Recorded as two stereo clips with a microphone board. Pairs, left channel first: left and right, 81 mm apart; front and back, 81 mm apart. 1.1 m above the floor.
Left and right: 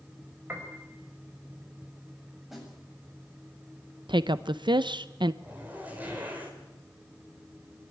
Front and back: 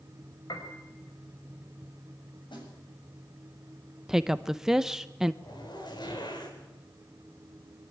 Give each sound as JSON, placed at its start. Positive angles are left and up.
{"t": 0.5, "sound": "a piano", "azimuth_deg": -30, "distance_m": 4.5}
{"t": 2.5, "sound": "a snare drum", "azimuth_deg": 0, "distance_m": 7.5}
{"t": 4.1, "sound": "a woman speaking", "azimuth_deg": -95, "distance_m": 0.6}
{"t": 5.4, "sound": "a zipper", "azimuth_deg": -20, "distance_m": 5.0}